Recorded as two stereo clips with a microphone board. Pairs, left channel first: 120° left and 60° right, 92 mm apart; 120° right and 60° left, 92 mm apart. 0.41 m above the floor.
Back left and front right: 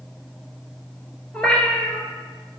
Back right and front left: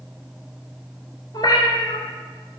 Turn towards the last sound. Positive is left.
turn(degrees=-160)